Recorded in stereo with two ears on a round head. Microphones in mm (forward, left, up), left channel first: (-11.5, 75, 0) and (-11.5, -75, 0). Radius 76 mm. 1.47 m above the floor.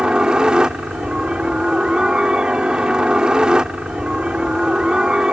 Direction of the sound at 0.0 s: 5° right (ahead or behind).